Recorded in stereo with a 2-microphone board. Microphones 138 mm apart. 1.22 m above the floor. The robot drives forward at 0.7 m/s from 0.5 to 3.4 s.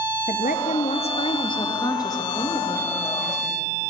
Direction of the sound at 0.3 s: 65° left (ahead or behind).